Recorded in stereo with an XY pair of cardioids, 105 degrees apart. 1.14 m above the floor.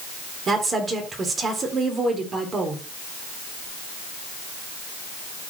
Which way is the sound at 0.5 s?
40° right.